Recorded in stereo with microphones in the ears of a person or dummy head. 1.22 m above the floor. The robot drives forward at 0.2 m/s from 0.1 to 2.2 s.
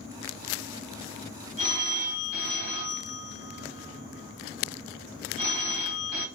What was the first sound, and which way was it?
A phone ringing, 45° right (ahead or behind).